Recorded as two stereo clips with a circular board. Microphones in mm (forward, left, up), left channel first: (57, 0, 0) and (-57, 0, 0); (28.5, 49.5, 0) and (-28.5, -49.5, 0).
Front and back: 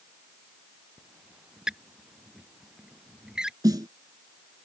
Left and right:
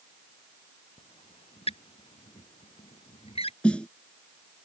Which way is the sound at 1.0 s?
95° left.